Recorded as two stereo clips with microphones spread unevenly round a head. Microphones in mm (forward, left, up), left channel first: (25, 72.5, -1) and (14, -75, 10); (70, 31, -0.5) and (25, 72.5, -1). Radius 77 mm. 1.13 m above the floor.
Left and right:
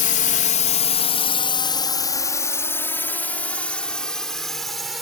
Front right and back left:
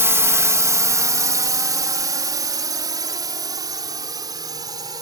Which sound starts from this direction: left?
A drone, at 0.0 s.